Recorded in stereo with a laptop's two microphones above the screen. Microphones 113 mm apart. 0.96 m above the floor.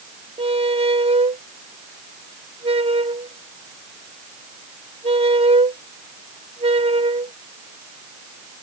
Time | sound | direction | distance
0.4 | a squeak | 55° right (ahead or behind) | ?